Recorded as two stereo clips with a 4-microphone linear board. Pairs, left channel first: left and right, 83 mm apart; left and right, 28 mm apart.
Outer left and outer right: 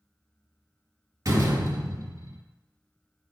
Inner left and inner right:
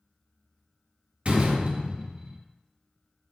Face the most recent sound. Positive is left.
turn(degrees=-45)  # may be behind; listen again after turning